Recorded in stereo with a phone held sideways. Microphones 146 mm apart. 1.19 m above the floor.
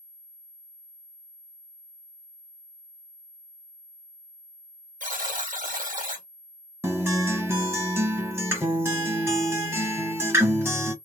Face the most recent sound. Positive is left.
turn(degrees=-15)  # may be behind; listen again after turning